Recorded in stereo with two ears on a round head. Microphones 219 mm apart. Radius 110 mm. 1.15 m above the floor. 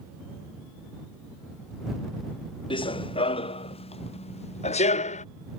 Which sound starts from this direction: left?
Running footsteps, at 2.7 s.